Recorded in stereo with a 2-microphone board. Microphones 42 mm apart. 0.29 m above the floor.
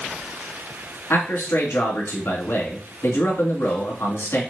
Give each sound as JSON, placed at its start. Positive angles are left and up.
{"t": 1.1, "sound": "a man speaking", "side_deg": 70, "distance_m": 3.0}